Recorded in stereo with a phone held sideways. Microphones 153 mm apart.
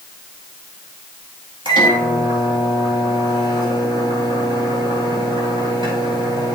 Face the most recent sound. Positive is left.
turn(degrees=-30)  # may be behind; listen again after turning